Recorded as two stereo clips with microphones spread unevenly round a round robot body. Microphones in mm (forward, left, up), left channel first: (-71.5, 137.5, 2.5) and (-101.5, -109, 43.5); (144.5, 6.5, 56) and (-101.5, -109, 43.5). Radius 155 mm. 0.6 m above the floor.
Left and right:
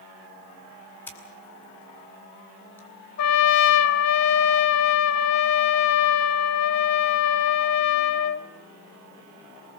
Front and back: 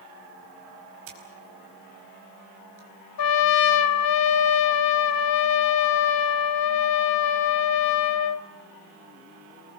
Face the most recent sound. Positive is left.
turn(degrees=40)